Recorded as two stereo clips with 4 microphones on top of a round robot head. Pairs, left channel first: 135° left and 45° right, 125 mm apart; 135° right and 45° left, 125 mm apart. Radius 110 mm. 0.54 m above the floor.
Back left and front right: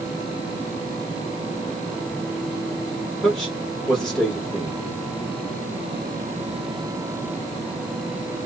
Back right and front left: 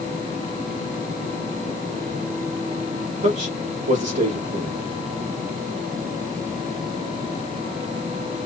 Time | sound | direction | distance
3.2 | a man speaking | 50° left | 1.8 m